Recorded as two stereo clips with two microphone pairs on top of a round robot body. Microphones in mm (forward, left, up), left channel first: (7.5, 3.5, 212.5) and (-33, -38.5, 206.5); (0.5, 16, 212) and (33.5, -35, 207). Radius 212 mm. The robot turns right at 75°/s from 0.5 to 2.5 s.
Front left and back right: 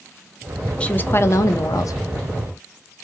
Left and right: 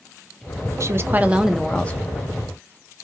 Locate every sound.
0.8 s a woman speaking: 30° right, 0.7 m; by 2.0 s 60° left, 0.7 m